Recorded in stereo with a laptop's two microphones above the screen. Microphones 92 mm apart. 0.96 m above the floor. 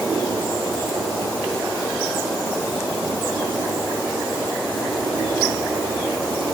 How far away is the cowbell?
No cowbell in this recording.